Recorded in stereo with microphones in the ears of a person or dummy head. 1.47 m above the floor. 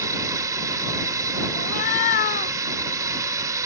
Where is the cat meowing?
45° left (ahead or behind).